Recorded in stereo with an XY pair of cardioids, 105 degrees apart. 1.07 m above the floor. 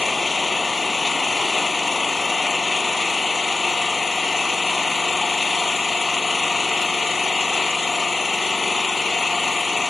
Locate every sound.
0.0 s an engine running: 20° left